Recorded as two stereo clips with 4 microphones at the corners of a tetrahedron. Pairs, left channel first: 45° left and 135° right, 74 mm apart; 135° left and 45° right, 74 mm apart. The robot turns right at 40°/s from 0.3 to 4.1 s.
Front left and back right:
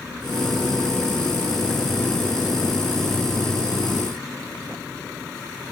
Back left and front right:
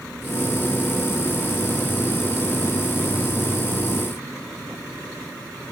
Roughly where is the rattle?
I don't hear a rattle.